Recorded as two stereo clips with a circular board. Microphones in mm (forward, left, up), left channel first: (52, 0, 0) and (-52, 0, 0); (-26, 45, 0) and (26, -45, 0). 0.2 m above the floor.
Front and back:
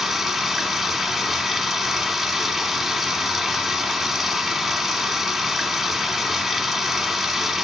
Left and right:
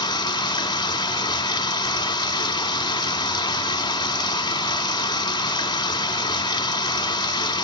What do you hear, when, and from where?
0.0 s running water: 90° left, 1.1 m